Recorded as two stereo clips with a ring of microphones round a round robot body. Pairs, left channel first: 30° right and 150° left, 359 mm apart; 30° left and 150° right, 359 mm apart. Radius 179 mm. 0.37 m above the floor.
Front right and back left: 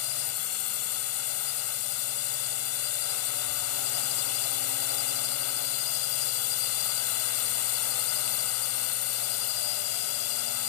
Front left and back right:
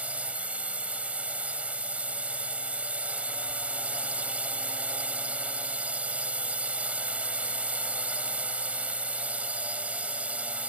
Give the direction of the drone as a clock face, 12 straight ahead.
2 o'clock.